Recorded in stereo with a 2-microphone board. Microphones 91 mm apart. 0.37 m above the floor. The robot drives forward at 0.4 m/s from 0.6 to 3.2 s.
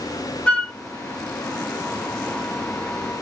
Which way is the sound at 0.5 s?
15° left (ahead or behind).